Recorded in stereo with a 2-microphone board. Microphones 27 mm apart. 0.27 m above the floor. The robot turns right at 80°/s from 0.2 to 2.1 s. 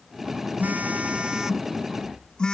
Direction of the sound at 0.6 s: 85° right.